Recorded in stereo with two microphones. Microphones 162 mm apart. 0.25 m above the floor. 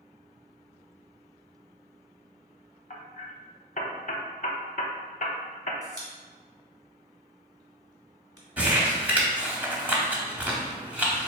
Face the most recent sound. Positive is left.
turn(degrees=-10)  # may be behind; listen again after turning